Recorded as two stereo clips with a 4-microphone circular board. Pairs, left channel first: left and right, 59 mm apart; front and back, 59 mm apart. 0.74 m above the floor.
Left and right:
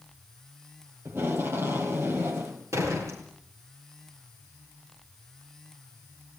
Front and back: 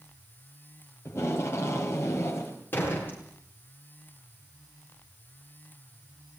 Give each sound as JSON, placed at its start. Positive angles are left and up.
{"t": 1.1, "sound": "tape being pulled", "azimuth_deg": -45, "distance_m": 5.5}
{"t": 2.7, "sound": "a door slam", "azimuth_deg": -55, "distance_m": 9.5}